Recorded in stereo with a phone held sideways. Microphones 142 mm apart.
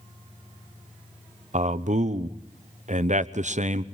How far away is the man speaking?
About 0.9 m.